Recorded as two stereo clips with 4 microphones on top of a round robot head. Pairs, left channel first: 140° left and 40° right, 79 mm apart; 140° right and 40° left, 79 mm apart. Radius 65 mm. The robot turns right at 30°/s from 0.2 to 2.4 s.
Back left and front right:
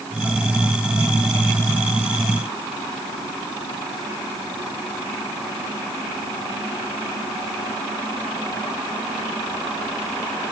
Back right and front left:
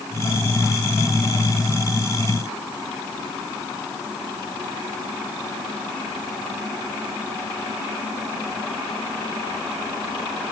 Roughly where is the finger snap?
I don't hear a finger snap.